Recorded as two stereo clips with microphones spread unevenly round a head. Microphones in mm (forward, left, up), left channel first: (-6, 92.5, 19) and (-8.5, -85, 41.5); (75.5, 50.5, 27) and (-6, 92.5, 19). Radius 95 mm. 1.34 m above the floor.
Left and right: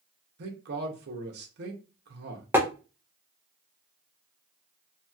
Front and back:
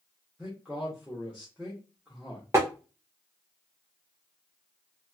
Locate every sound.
0.4 s a man speaking: 120° right, 0.8 m
2.5 s tapping: 150° right, 0.5 m